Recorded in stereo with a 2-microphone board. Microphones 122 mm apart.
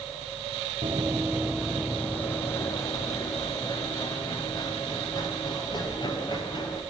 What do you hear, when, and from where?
0.8 s running footsteps: 45° right (ahead or behind), 0.8 m; by 6.8 s 40° left (ahead or behind), 5 m